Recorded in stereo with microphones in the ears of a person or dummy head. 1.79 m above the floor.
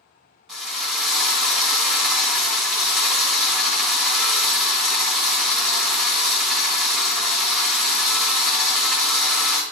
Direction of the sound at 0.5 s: 5° right (ahead or behind).